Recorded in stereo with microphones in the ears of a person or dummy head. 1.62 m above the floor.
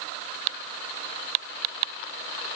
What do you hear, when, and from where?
Only background noise.